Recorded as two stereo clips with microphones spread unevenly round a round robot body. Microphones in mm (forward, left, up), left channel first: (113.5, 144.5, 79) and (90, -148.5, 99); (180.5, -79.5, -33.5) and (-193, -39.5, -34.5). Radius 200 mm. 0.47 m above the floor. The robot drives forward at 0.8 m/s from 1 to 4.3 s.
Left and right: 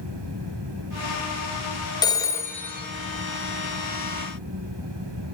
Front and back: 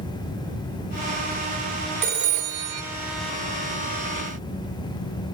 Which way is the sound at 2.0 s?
130° left.